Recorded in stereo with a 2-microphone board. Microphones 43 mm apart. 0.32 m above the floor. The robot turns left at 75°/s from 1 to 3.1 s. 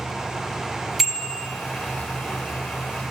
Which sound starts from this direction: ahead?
A bicycle bell, at 1.0 s.